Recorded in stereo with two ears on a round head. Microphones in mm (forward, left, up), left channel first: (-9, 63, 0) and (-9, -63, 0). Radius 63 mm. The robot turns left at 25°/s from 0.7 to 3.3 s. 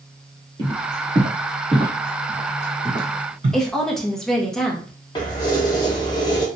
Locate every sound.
0.6 s footsteps: 30° right (ahead or behind), 1.6 m; by 3.6 s 40° right (ahead or behind), 2 m
3.5 s a woman speaking: 5° left (ahead or behind), 0.7 m
5.2 s keys jangling: 30° left (ahead or behind), 0.7 m